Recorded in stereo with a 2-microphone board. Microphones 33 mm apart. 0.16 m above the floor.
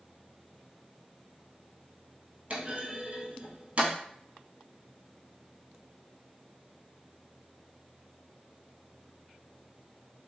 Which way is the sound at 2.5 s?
45° right (ahead or behind).